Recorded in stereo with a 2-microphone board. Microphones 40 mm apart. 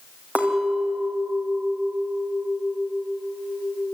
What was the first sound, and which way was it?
A clink, 35° right (ahead or behind).